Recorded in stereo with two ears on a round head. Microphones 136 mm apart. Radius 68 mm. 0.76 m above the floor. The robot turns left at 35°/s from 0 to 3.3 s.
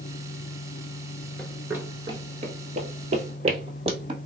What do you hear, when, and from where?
1.4 s running footsteps: 5° left (ahead or behind), 0.7 m; by 4.2 s 40° right (ahead or behind), 1.7 m